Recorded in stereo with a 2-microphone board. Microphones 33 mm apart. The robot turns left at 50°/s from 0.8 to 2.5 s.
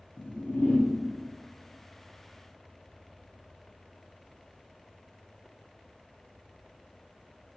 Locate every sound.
0.2 s a whoosh: 85° left, 0.8 m; by 0.9 s 80° left, 0.8 m